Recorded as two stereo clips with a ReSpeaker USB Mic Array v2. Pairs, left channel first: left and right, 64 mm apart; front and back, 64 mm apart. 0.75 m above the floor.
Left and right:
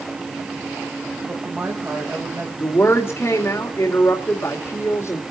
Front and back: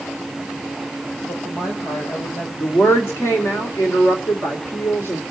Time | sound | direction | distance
1.3 | a woman speaking | 25° right | 4 m
2.6 | a woman speaking | 45° left | 2.5 m